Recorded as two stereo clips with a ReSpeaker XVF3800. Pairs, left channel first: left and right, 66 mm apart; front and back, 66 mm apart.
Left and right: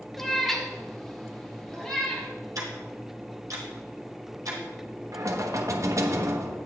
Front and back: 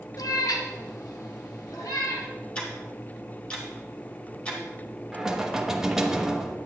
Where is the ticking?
70° right, 2.5 m.